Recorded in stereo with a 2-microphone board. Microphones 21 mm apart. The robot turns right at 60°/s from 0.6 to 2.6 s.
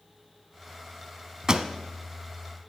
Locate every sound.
1.5 s a pop: 35° right (ahead or behind), 0.6 m; by 1.7 s 45° right (ahead or behind), 0.6 m